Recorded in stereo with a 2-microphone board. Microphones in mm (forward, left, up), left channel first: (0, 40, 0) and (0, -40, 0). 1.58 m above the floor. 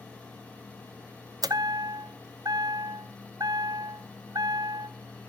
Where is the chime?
50° right (ahead or behind), 0.7 m.